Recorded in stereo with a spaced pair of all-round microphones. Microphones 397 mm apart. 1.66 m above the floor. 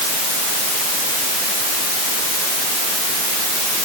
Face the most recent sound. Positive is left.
No sound to turn to.